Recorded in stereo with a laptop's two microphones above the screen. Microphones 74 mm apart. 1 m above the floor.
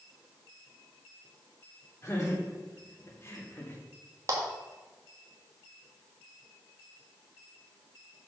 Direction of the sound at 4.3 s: 45° right (ahead or behind).